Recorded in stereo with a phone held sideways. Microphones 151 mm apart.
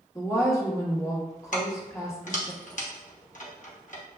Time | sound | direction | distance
0.1 | a woman speaking | 20° left (ahead or behind) | 1.3 m
1.5 | keys jangling | 60° left (ahead or behind) | 0.9 m